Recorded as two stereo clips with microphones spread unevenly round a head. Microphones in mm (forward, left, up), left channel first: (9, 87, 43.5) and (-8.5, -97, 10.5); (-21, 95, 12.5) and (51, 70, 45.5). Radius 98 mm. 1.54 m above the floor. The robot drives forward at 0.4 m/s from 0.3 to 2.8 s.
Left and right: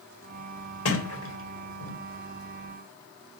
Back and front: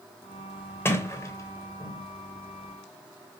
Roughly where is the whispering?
I don't hear whispering.